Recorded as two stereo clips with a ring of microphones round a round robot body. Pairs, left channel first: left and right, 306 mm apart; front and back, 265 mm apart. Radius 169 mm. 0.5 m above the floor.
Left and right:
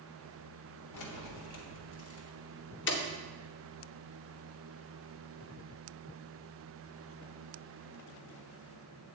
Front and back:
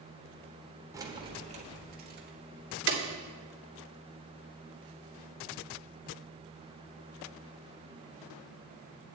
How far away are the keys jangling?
About 1.4 m.